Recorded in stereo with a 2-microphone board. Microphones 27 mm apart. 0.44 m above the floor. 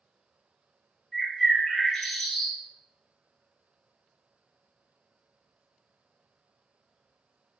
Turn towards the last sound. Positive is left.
turn(degrees=25)  # may be behind; listen again after turning